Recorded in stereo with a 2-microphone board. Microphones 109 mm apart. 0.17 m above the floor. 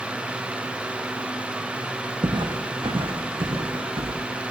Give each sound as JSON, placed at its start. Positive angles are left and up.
{"t": 2.2, "sound": "footsteps", "side_deg": -45, "distance_m": 2.5}